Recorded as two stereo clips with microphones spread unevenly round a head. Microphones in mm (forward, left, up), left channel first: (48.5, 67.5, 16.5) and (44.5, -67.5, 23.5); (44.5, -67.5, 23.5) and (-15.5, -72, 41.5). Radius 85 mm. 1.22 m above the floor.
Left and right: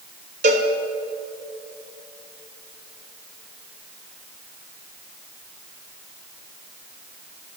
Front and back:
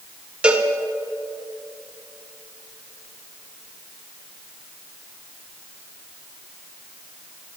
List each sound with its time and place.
0.4 s a cowbell: 120° right, 1.2 m